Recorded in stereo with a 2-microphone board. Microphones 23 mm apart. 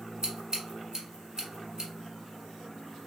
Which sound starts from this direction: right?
Scissors, at 0.2 s.